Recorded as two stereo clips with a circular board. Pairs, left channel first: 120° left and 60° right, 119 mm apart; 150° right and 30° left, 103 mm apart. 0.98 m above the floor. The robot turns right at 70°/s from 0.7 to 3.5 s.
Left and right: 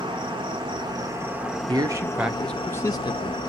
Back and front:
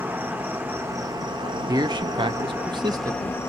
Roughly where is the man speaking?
Ahead.